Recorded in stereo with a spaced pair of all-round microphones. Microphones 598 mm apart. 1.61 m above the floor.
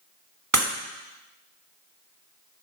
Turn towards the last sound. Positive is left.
turn(degrees=-30)  # may be behind; listen again after turning